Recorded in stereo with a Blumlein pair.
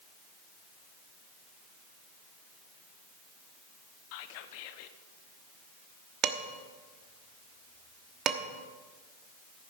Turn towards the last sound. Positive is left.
turn(degrees=-30)